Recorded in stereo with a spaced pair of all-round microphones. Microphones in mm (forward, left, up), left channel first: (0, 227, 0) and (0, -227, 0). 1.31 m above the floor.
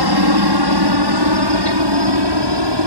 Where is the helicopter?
55° right (ahead or behind); by 2.9 s 65° right (ahead or behind).